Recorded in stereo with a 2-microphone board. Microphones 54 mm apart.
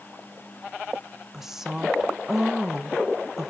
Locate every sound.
1.3 s a woman speaking: 10° right (ahead or behind), 0.8 m